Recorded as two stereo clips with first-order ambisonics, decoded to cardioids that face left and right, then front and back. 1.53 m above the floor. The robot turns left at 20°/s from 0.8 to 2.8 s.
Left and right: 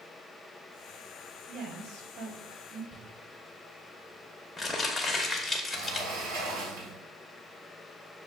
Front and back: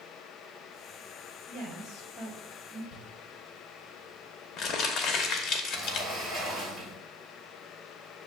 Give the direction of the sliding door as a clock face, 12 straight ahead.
3 o'clock.